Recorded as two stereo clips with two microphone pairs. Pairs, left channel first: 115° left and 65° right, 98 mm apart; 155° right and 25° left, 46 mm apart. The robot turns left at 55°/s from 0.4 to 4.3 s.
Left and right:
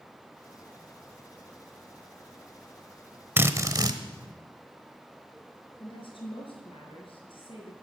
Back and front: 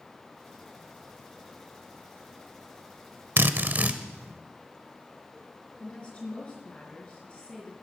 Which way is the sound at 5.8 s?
140° left.